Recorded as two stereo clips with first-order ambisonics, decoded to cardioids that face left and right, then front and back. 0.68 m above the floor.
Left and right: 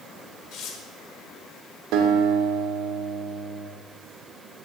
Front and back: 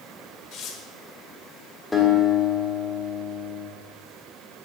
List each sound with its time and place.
0.5 s tearing paper: 45° left, 1.2 m
1.9 s a guitar: 85° right, 1.3 m